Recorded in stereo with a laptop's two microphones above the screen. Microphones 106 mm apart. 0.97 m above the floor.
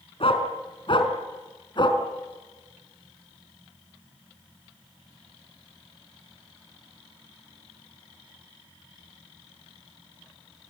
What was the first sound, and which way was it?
A dog barking, 60° left (ahead or behind).